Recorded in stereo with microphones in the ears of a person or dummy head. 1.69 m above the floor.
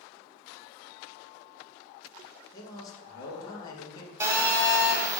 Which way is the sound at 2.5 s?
20° left (ahead or behind).